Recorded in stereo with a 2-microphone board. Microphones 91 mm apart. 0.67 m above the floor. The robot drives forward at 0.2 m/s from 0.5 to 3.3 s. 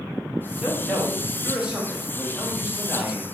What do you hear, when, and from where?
0.6 s a man speaking: 10° right (ahead or behind), 0.9 m; by 3.2 s 15° right (ahead or behind), 0.6 m